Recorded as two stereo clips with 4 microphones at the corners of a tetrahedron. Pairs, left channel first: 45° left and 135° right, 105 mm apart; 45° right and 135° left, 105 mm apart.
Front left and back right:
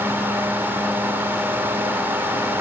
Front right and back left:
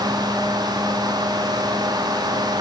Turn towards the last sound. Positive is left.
No sound to turn to.